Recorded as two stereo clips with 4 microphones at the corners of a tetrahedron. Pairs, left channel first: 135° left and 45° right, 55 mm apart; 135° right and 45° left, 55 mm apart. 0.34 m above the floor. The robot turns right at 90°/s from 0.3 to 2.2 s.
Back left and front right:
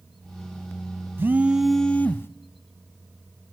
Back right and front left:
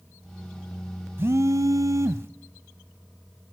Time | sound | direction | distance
1.2 | a phone buzzing | straight ahead | 0.6 m